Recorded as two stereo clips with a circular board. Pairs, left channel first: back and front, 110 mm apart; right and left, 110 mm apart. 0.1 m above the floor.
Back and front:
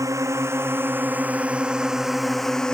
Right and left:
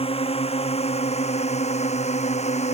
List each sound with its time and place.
0.0 s a drone: 60° right; by 2.7 s 100° right